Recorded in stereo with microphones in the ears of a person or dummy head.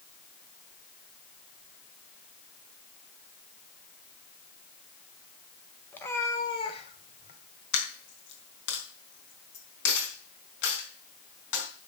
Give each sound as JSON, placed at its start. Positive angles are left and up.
{"t": 5.9, "sound": "a cat meowing", "side_deg": 10, "distance_m": 1.5}
{"t": 7.7, "sound": "a dropped coin", "side_deg": 70, "distance_m": 4.0}